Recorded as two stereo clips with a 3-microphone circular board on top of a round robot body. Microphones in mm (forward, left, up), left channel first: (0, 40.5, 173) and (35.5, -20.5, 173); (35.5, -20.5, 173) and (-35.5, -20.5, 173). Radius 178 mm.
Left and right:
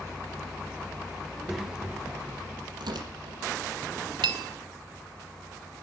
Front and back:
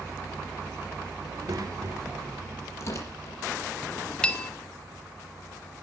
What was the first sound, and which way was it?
A child speaking, 150° right.